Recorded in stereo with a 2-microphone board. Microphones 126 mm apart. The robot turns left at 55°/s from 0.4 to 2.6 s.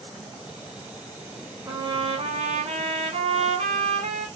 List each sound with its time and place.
1.6 s a trumpet: 30° right, 0.9 m; by 4.3 s 85° right, 0.9 m